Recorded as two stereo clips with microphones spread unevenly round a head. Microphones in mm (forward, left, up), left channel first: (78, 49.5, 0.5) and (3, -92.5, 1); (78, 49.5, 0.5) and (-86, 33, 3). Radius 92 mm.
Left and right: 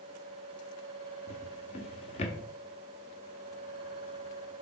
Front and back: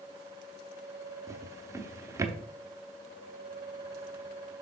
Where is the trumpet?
I don't hear a trumpet.